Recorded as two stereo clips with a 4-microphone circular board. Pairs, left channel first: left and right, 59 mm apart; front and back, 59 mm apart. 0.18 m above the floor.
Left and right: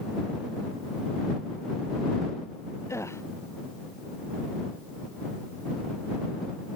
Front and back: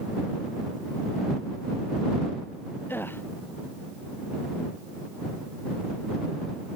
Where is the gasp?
55° left.